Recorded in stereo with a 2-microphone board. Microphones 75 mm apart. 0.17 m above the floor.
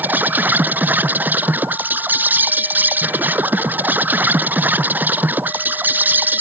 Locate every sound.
0.0 s an insect: 25° right (ahead or behind)